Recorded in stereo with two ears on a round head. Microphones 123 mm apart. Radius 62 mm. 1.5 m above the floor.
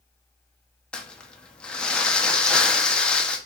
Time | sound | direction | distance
0.9 | crumpling | 10° left (ahead or behind) | 1.2 m